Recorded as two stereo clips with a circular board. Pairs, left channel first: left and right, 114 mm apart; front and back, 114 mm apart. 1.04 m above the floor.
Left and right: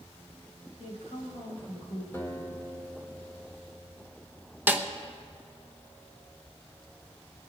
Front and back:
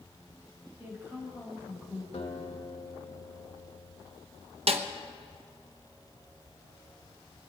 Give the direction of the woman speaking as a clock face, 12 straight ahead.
8 o'clock.